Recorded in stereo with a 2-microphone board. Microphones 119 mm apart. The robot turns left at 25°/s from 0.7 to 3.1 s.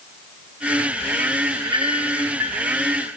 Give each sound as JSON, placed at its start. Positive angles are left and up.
{"t": 1.5, "sound": "a clink", "side_deg": -50, "distance_m": 4.0}